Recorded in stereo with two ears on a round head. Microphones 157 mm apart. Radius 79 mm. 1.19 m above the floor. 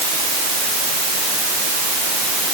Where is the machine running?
I don't hear a machine running.